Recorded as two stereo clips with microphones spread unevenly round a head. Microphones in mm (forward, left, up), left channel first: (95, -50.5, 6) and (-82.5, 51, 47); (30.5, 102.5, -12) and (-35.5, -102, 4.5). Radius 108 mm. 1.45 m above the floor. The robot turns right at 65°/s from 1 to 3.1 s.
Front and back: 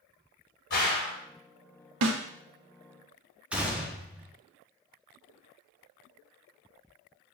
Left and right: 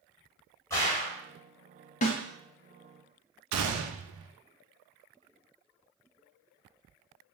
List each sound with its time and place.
0.7 s a gunshot: 5° right, 1.6 m; by 1.2 s 5° left, 1.6 m
2.0 s a snare drum: 130° left, 0.5 m; by 2.2 s 145° left, 0.5 m
3.5 s a gunshot: 120° right, 0.5 m